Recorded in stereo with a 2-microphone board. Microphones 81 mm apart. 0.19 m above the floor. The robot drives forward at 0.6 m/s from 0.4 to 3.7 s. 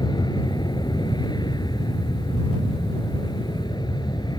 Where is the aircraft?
65° left (ahead or behind).